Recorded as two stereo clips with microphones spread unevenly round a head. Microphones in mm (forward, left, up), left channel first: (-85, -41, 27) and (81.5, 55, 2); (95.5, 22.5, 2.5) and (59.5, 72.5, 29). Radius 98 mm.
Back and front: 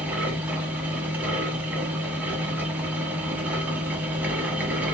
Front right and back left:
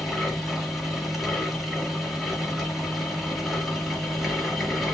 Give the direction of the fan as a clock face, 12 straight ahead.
8 o'clock.